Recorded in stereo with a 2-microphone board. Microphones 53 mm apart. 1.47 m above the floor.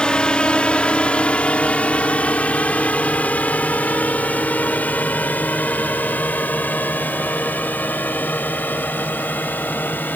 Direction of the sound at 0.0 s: 20° left (ahead or behind).